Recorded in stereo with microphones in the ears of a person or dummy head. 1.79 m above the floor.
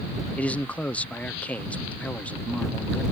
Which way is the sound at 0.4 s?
10° left (ahead or behind).